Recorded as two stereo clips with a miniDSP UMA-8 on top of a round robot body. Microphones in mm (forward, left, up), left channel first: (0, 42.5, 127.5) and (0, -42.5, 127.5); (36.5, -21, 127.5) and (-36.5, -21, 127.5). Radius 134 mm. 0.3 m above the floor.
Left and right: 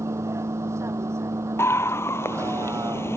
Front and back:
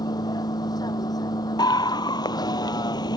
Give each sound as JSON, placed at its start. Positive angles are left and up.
{"t": 0.0, "sound": "a vehicle", "azimuth_deg": -30}
{"t": 1.6, "sound": "a scream", "azimuth_deg": 30}